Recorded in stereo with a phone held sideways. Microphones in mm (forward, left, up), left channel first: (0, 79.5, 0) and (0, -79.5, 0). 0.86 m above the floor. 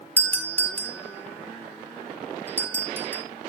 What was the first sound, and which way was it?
A doorbell, 10° left (ahead or behind).